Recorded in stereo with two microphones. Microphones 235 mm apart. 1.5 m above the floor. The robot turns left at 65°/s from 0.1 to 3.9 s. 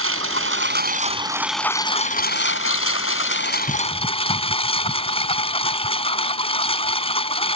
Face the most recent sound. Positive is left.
turn(degrees=25)